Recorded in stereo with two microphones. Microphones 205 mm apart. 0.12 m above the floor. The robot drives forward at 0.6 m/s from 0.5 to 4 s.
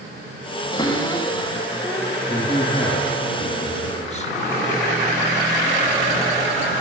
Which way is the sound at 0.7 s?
20° left (ahead or behind).